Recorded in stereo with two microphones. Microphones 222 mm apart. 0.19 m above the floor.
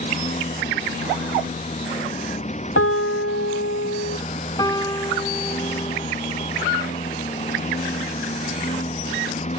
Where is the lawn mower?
30° left (ahead or behind).